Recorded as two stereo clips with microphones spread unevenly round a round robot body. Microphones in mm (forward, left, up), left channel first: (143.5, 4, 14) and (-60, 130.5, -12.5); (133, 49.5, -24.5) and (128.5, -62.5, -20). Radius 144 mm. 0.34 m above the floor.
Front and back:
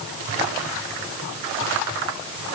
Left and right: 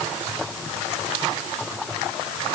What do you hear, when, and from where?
Only background noise.